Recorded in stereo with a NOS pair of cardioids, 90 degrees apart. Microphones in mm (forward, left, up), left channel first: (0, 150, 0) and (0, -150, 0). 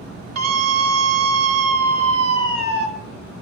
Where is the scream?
55° right, 5 m.